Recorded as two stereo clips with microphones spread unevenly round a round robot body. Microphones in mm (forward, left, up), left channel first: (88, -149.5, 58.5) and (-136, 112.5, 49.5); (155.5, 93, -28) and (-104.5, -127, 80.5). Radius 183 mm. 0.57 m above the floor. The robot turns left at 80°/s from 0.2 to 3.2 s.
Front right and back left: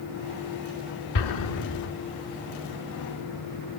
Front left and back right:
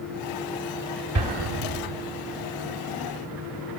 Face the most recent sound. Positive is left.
turn(degrees=130)